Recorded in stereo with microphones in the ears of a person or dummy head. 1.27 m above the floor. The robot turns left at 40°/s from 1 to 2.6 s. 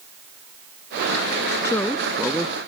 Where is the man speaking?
20° left; by 2.6 s 20° right.